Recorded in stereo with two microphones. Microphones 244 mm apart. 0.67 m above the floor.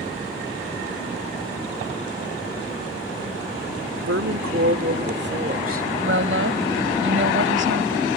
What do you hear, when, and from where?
4.1 s a woman speaking: 70° right (ahead or behind); by 5.9 s 35° right (ahead or behind)
6.0 s a woman speaking: 55° right (ahead or behind)